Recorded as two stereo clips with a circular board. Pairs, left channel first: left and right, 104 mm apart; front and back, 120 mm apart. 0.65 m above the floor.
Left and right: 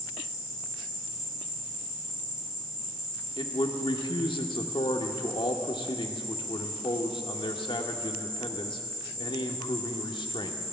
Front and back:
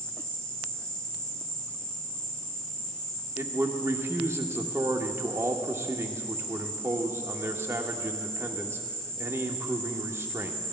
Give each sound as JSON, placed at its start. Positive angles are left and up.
{"t": 0.0, "sound": "an insect", "azimuth_deg": -80, "distance_m": 2.0}
{"t": 3.4, "sound": "a man speaking", "azimuth_deg": 115, "distance_m": 1.2}